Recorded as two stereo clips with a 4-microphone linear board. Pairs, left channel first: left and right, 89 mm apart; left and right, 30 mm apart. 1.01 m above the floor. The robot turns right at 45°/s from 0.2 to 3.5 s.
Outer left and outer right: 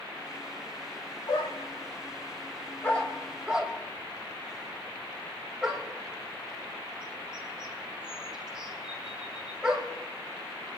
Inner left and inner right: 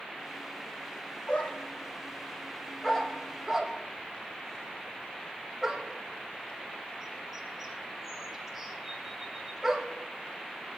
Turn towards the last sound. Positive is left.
turn(degrees=-10)  # may be behind; listen again after turning